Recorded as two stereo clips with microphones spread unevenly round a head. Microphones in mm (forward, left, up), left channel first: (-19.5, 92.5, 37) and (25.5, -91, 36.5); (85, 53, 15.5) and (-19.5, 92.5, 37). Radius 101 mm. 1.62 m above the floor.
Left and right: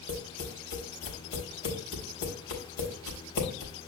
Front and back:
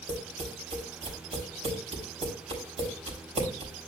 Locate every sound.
0.1 s tapping: 135° left, 4 m